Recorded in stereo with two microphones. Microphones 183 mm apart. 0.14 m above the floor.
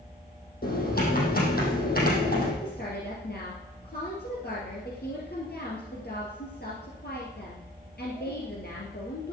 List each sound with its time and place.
0.6 s typing on a keyboard: 60° left (ahead or behind), 4 m
2.6 s a woman speaking: 65° left (ahead or behind), 2.5 m